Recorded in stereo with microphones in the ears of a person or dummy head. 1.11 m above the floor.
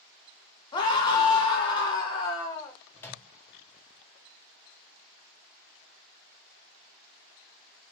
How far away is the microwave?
About 0.5 m.